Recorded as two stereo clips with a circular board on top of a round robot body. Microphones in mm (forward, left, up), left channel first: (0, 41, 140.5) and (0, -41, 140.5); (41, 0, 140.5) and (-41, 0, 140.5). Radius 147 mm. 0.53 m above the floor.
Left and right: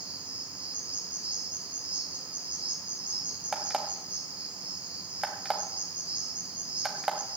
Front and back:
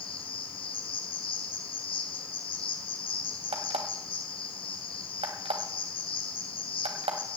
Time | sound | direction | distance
0.0 | an insect | 15° right | 1.7 m
3.5 | an alarm clock | 175° right | 1.6 m